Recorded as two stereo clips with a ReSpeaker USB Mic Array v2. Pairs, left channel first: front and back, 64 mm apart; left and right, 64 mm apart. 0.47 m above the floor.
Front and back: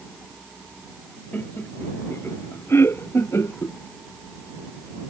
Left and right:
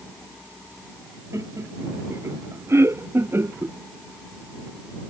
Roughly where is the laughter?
Ahead right.